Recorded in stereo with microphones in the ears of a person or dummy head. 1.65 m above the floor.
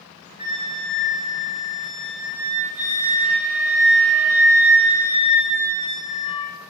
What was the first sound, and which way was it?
A flute, 20° right (ahead or behind).